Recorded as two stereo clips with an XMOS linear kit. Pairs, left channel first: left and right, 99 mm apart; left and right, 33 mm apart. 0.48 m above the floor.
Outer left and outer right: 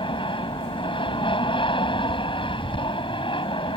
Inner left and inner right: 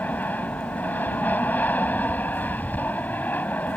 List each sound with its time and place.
0.0 s an aircraft: 60° left (ahead or behind)